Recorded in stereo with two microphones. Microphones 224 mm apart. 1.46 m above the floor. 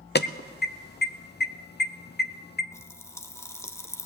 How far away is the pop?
About 0.8 m.